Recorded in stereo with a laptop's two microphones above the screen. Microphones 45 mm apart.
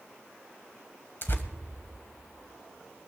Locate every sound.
1.2 s tearing paper: 50° left (ahead or behind), 1.4 m